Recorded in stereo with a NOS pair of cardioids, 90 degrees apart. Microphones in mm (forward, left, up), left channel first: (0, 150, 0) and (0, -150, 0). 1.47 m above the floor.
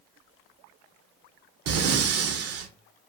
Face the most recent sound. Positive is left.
turn(degrees=-55)